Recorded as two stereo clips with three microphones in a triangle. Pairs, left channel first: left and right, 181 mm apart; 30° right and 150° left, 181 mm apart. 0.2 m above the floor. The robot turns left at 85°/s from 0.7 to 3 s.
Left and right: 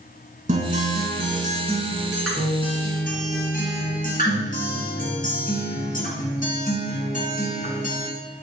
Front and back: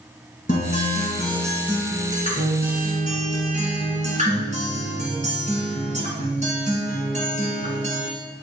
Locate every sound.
0.5 s a guitar: 50° right, 1.9 m; by 8.1 s 110° left, 1.9 m